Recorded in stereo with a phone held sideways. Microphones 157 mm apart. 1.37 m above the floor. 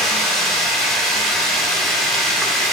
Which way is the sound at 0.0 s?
Centre (ahead or behind).